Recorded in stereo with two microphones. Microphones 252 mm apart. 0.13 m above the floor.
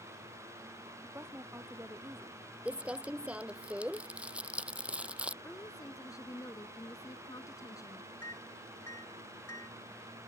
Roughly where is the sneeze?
I don't hear a sneeze.